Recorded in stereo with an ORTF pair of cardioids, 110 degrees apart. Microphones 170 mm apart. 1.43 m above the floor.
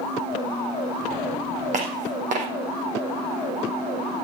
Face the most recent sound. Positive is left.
turn(degrees=-50)